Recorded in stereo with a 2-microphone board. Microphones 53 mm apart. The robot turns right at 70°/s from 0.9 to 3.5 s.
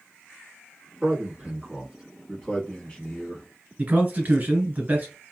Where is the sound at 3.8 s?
35° right (ahead or behind), 1.4 m.